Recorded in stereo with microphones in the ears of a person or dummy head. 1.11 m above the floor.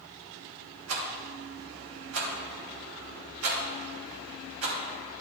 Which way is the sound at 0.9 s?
70° right (ahead or behind).